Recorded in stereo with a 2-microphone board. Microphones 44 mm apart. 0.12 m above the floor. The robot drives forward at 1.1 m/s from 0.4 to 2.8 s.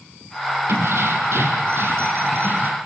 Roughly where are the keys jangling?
Right.